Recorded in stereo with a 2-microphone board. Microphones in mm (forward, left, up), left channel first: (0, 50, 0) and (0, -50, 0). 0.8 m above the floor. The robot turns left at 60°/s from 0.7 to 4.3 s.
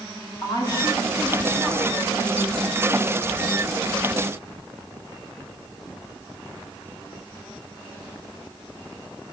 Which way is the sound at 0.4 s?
40° left.